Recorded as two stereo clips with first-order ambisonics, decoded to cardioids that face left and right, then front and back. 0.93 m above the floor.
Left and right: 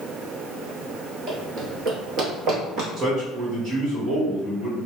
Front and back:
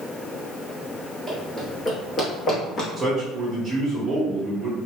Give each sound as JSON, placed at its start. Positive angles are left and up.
{"t": 1.3, "sound": "running footsteps", "azimuth_deg": -85, "distance_m": 1.1}
{"t": 3.0, "sound": "a man speaking", "azimuth_deg": -105, "distance_m": 1.4}